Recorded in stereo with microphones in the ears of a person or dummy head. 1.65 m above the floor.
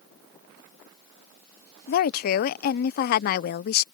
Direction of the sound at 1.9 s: 55° left (ahead or behind).